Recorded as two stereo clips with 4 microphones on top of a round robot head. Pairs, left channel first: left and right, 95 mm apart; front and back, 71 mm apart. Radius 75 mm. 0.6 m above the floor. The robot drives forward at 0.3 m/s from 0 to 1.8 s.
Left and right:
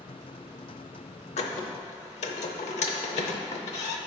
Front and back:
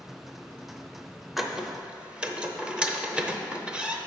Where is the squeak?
95° left, 0.6 m; by 4.0 s 105° left, 0.6 m.